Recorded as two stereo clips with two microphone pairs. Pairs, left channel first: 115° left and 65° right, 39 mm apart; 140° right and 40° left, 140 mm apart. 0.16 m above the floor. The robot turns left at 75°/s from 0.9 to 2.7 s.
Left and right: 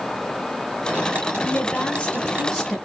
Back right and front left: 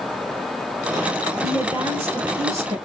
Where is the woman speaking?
135° left, 1.6 m; by 2.8 s 40° left, 1.6 m.